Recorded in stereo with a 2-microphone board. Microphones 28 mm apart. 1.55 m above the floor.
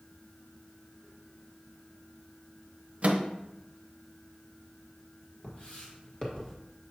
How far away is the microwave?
About 0.8 m.